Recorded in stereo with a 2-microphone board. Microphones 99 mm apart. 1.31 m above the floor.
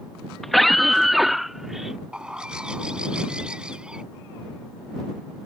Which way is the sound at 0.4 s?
5° left (ahead or behind).